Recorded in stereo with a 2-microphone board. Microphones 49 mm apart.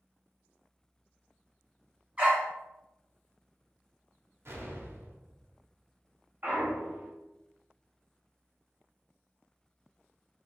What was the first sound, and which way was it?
A dog barking, 30° right (ahead or behind).